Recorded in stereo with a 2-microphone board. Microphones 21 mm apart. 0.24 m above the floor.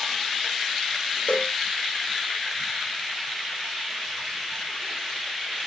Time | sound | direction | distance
1.3 | a cowbell | 50° left (ahead or behind) | ?